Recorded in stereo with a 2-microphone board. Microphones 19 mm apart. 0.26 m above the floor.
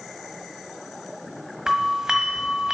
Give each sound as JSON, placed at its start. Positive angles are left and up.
{"t": 1.7, "sound": "a doorbell", "side_deg": -35, "distance_m": 1.5}